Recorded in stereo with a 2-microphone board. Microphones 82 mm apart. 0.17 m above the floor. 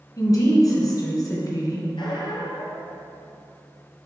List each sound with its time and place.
0.2 s a woman speaking: 45° left (ahead or behind), 1.9 m
2.0 s a squeak: 75° left (ahead or behind), 1.3 m